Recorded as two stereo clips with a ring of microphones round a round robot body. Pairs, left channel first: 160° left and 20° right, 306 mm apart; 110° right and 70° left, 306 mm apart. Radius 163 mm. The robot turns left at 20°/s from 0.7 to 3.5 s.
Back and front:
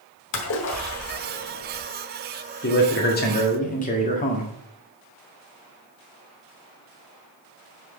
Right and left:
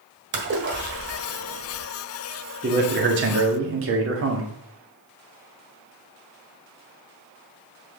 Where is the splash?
120° left, 1.4 m; by 1.8 s 100° left, 1.4 m.